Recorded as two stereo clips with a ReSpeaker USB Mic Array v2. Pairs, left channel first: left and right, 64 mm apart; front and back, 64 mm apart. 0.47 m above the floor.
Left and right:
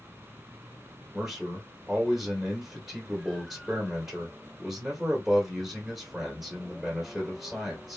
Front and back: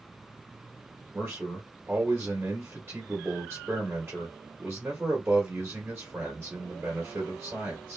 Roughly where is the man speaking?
Behind.